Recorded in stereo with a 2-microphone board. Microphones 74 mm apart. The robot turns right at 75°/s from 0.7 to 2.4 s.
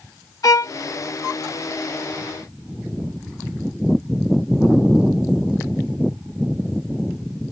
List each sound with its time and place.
0.4 s a violin: 55° left (ahead or behind)